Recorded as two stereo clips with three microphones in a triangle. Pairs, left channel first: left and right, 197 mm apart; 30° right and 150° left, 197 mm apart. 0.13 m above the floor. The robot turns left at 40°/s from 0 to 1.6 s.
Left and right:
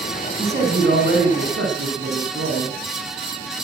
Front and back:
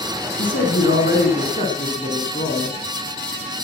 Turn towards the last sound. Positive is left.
turn(degrees=-75)